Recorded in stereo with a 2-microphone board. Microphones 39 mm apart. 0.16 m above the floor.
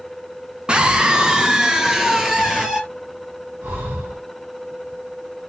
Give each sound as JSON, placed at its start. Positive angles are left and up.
{"t": 0.7, "sound": "a scream", "side_deg": -25, "distance_m": 1.4}
{"t": 3.6, "sound": "breathing", "side_deg": -70, "distance_m": 4.0}